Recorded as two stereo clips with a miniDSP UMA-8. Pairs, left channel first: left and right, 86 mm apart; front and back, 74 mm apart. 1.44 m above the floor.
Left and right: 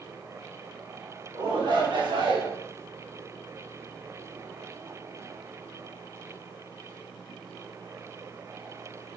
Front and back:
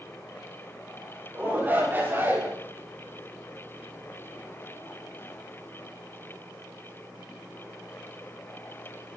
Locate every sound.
1.3 s a shout: 115° right, 7 m; by 2.5 s 120° right, 6.5 m